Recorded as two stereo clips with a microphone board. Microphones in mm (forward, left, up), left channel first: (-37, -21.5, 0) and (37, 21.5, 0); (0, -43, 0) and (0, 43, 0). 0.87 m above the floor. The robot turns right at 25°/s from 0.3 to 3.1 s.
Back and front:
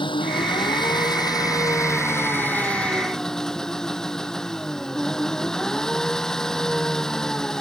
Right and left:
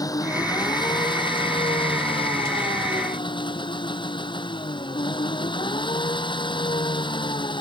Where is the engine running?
135° right; by 7.6 s 65° right.